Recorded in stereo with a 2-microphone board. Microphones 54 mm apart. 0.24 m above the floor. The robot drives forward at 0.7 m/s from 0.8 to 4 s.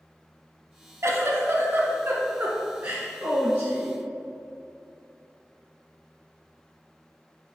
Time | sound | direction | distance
1.0 | a giggle | 55° right (ahead or behind) | 1.0 m